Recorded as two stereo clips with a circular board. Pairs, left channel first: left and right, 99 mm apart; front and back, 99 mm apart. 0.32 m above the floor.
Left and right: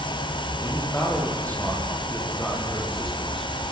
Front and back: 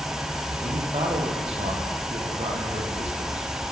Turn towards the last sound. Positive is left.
turn(degrees=180)